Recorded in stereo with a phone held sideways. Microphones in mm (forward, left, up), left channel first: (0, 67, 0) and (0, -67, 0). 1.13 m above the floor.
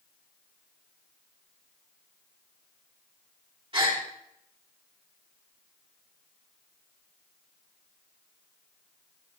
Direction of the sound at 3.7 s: 40° right (ahead or behind).